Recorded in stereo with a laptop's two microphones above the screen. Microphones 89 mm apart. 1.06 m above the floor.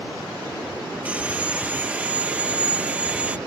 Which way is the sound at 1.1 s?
15° right (ahead or behind).